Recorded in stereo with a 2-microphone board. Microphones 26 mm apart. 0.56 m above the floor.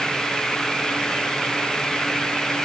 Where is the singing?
I don't hear singing.